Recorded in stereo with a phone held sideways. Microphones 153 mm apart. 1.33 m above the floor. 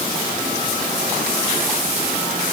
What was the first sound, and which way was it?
Only background noise.